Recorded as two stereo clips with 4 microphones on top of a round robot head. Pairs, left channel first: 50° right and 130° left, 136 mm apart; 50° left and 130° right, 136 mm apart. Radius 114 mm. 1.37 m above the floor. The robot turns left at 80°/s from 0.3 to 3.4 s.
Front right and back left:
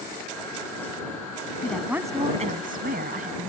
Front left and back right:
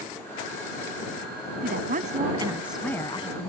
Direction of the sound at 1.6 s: 125° right.